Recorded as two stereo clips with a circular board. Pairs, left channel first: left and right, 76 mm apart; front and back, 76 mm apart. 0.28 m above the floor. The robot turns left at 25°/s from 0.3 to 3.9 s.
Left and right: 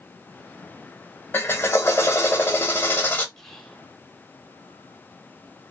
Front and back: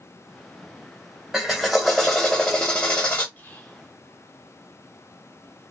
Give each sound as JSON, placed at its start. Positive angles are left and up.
{"t": 1.3, "sound": "a drill", "azimuth_deg": 100, "distance_m": 0.8}
{"t": 3.4, "sound": "whispering", "azimuth_deg": 15, "distance_m": 0.9}